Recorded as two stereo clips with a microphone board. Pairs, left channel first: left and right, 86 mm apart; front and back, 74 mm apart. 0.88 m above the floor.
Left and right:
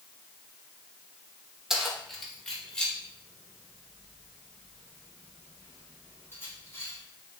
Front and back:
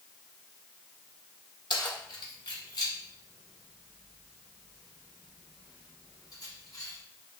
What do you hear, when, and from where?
1.7 s keys jangling: 5° right, 1.5 m; by 7.0 s 30° left, 4.5 m